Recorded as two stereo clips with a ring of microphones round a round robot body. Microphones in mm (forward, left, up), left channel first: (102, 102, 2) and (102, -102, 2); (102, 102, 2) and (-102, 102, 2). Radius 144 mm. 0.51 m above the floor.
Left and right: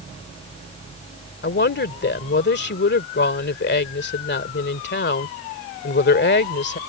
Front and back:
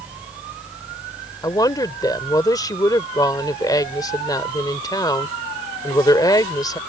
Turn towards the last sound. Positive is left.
turn(degrees=70)